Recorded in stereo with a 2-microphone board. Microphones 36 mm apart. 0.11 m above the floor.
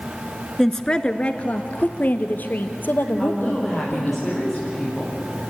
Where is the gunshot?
No gunshot in this recording.